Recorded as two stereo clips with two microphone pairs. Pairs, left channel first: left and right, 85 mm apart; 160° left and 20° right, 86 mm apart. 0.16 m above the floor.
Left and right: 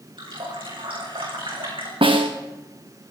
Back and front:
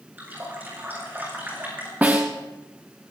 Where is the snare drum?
95° right, 2.5 m.